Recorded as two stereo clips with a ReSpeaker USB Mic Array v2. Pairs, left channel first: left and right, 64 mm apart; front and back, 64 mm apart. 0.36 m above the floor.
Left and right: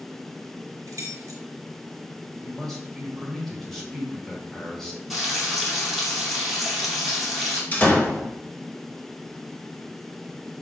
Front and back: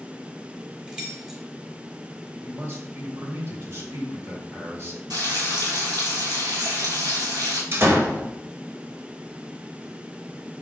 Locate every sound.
0.9 s keys jangling: 105° right, 1.5 m
2.4 s a man speaking: 175° left, 1.2 m
5.1 s frying: straight behind, 1.8 m
7.7 s a door slam: 145° left, 0.7 m